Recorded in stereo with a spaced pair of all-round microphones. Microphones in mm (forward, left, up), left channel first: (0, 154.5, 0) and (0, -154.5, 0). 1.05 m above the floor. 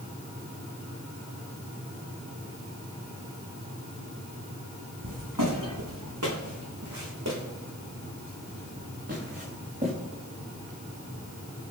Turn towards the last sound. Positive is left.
turn(degrees=-25)  # may be behind; listen again after turning